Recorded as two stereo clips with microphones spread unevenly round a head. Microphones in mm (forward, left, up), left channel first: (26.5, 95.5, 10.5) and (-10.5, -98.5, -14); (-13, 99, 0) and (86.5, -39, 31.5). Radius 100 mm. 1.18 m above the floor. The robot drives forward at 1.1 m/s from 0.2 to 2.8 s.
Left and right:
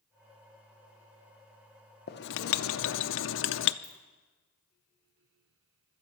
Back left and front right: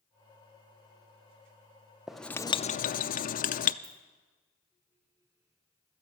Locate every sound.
2.1 s writing: 35° left, 0.9 m; by 3.7 s 105° left, 0.6 m
3.8 s a ringtone: 55° right, 8.5 m